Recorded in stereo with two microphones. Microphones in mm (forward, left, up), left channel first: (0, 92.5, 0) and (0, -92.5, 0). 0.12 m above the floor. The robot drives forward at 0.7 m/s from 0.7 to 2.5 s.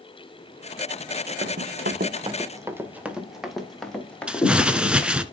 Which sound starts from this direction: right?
Running footsteps, at 1.4 s.